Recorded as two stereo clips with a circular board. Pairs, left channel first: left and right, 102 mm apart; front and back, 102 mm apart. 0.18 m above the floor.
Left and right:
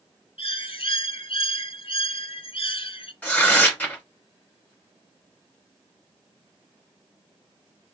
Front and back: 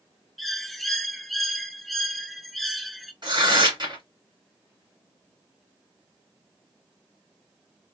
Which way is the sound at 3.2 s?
160° left.